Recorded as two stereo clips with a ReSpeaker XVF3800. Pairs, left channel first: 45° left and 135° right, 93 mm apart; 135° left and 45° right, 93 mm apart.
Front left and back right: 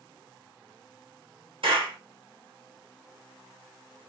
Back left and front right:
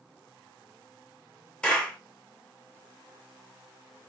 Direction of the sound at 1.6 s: 145° right.